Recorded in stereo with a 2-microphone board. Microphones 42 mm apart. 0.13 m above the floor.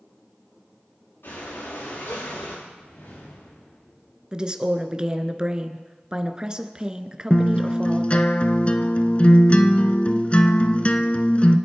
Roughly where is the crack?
I don't hear a crack.